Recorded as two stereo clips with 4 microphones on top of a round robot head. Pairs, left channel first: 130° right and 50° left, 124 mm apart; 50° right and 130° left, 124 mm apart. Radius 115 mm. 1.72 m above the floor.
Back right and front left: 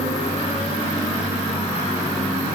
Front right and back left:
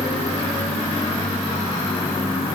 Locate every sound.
Only background noise.